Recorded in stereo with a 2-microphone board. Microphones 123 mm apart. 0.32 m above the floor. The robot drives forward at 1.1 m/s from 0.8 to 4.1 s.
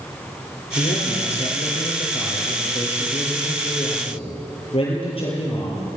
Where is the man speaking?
70° left (ahead or behind), 6.5 m; by 5.8 s 50° left (ahead or behind), 8.5 m.